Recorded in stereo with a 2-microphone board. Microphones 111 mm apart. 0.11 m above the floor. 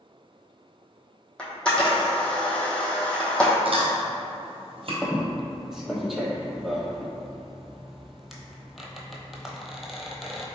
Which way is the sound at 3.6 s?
60° right (ahead or behind).